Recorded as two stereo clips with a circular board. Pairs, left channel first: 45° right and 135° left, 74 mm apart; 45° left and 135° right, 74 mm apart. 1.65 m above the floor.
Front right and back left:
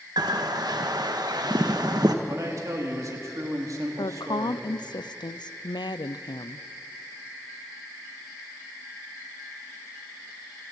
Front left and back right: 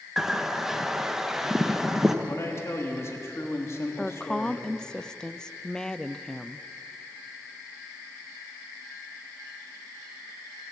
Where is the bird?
140° left, 1.2 m.